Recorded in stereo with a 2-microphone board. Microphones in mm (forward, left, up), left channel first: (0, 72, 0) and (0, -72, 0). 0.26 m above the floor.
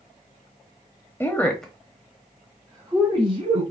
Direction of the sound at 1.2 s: 15° left (ahead or behind).